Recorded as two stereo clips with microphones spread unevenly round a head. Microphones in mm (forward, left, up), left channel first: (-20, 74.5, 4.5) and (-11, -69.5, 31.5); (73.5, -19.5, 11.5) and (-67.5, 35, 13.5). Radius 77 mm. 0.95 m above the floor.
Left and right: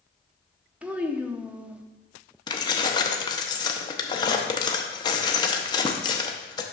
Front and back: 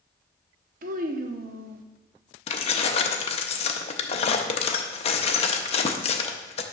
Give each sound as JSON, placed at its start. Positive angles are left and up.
{"t": 0.8, "sound": "a child speaking", "azimuth_deg": -165, "distance_m": 0.7}
{"t": 2.5, "sound": "keys jangling", "azimuth_deg": 30, "distance_m": 0.7}